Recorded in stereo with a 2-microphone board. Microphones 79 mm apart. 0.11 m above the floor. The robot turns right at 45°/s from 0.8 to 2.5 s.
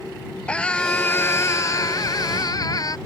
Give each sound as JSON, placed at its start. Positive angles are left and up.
{"t": 0.5, "sound": "a scream", "azimuth_deg": 20}